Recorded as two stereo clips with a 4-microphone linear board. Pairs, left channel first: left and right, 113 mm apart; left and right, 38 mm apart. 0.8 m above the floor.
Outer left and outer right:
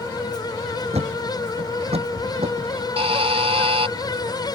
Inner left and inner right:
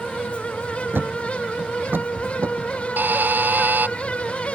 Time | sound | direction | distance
0.9 | a thud | 65° right (ahead or behind) | ?
3.0 | a buzzer | 60° right (ahead or behind) | ?